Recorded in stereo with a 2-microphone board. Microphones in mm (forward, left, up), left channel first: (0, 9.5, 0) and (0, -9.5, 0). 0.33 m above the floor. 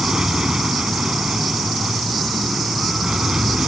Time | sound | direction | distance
0.0 | an aircraft | 40° right (ahead or behind) | ?